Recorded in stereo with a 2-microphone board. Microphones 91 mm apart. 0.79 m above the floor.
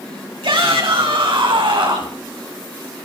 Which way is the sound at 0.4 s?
80° right.